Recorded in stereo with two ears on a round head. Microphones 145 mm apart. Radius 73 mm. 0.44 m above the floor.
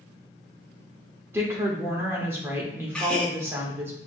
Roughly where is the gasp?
Centre.